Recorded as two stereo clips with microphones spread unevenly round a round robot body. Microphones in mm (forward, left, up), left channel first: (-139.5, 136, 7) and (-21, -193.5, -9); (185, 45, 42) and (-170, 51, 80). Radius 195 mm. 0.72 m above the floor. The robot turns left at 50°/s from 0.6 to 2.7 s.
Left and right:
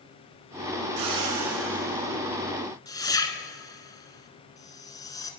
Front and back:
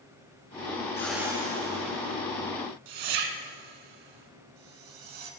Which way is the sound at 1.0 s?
85° right.